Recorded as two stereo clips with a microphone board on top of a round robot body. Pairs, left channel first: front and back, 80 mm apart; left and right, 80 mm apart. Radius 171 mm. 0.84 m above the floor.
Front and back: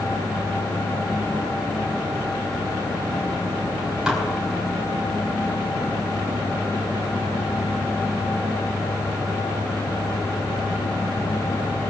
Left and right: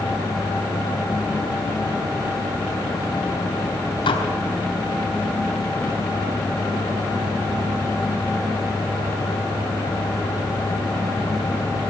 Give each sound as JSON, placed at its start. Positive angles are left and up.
{"t": 4.1, "sound": "dishes clattering", "azimuth_deg": 100, "distance_m": 3.5}